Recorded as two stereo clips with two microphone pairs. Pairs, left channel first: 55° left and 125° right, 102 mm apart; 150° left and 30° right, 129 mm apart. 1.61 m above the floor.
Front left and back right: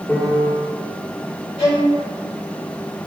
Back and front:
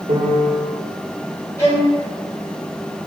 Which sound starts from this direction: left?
A violin, at 1.6 s.